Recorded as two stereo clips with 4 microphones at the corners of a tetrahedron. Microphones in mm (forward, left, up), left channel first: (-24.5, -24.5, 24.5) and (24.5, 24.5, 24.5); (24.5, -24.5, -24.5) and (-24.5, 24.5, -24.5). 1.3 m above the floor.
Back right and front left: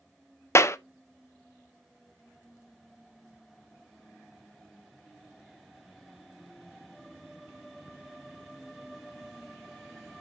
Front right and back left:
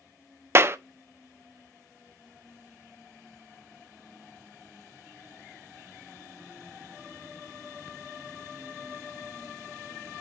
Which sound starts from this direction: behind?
A clap, at 0.6 s.